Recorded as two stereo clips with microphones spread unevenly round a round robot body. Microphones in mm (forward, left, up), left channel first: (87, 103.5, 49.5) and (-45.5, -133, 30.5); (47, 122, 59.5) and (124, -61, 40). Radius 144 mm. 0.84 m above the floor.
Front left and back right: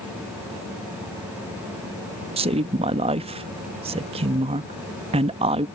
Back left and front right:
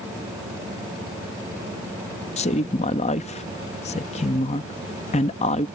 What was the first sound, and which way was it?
A woman speaking, 175° left.